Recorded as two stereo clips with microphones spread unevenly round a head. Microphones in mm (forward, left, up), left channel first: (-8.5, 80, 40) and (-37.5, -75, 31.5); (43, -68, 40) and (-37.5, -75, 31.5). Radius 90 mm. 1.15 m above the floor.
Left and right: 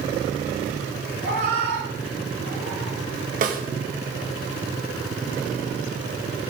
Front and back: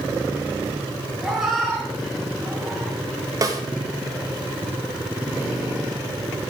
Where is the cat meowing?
90° right, 5.5 m.